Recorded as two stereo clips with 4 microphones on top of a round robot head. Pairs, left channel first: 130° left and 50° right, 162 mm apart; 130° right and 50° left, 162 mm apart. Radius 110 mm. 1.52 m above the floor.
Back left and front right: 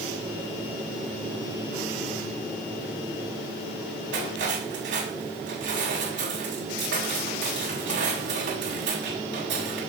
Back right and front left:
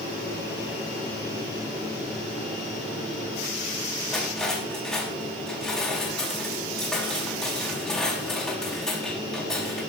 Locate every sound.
4.1 s cutlery clinking: 45° right, 6.5 m